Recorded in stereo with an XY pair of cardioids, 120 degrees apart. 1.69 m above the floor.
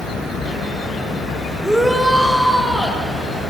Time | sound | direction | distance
1.6 | a shout | 5° right | 5.5 m